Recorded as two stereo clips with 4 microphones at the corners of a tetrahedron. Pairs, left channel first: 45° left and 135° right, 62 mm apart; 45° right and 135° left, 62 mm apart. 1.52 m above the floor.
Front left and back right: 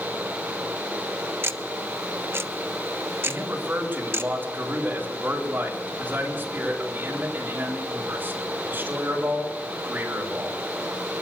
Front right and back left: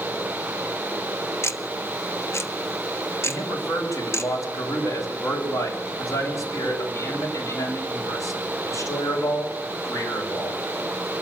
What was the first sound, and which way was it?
Ticking, 85° right.